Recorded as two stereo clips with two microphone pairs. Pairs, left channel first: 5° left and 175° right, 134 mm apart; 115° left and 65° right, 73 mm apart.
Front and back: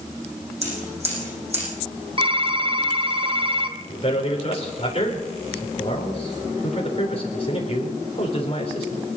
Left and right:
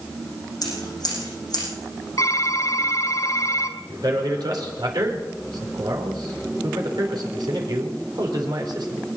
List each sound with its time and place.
0.6 s scissors: 145° left, 9.5 m
2.2 s typing on a keyboard: 140° left, 1.5 m
3.9 s a man speaking: 40° right, 4 m